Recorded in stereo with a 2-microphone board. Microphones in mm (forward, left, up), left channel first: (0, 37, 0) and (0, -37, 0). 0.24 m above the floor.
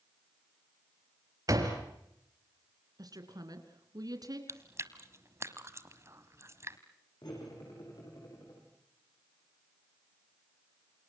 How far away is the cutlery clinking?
About 9.5 m.